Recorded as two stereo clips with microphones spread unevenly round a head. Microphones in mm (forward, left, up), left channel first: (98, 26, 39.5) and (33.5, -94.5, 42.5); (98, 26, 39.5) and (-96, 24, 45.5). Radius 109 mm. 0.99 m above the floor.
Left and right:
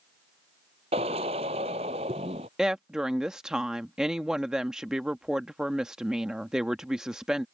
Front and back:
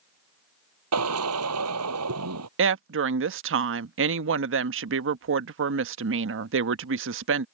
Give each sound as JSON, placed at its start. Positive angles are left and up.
{"t": 0.9, "sound": "a drill", "azimuth_deg": 180}
{"t": 2.6, "sound": "a woman speaking", "azimuth_deg": 155}